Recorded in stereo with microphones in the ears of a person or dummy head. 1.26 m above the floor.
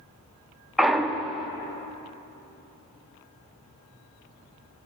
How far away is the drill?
No drill in this recording.